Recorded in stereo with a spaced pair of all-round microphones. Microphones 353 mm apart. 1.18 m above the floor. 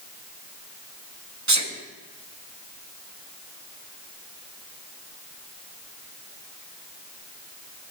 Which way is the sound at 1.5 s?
50° right (ahead or behind).